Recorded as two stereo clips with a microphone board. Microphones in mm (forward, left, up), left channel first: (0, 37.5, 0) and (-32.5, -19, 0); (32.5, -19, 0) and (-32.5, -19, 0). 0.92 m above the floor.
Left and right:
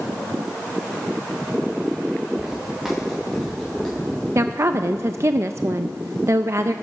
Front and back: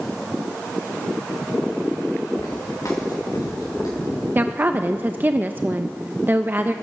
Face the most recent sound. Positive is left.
turn(degrees=-130)